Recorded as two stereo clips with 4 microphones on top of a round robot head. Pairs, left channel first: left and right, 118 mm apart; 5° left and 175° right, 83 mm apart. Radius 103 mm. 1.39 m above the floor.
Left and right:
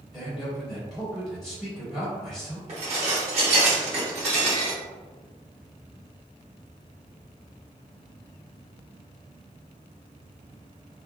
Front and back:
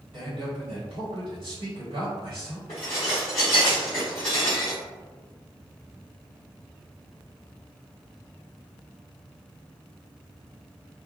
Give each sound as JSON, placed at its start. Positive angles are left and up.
{"t": 0.1, "sound": "a man speaking", "azimuth_deg": 170, "distance_m": 1.5}
{"t": 2.7, "sound": "dishes clattering", "azimuth_deg": -60, "distance_m": 0.9}